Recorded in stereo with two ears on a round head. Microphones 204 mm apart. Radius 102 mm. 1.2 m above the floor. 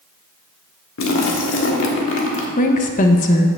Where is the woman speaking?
35° left (ahead or behind), 0.9 m.